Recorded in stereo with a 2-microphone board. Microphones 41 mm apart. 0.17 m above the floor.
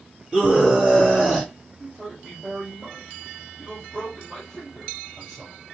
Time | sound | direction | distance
0.3 | a scream | 15° right (ahead or behind) | 4 m
1.8 | a man speaking | 10° right (ahead or behind) | 4 m